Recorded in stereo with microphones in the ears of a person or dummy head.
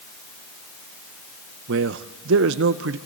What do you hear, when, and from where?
1.7 s a man speaking: 65° right (ahead or behind), 1.0 m